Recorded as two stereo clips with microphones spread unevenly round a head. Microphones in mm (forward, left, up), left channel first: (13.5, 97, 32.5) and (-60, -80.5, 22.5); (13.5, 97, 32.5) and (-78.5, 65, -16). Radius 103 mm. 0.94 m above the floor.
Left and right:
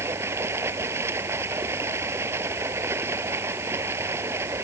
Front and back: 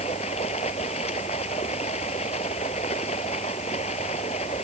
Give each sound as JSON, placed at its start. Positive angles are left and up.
{"t": 0.0, "sound": "running water", "azimuth_deg": -35}